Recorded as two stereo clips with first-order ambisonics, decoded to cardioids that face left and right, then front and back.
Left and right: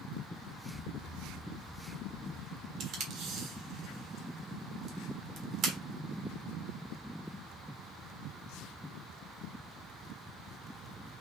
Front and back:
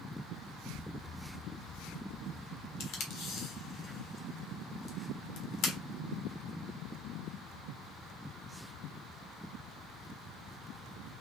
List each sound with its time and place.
0.7 s an explosion: 70° left, 1.7 m
2.8 s tape being pulled: 35° right, 1.5 m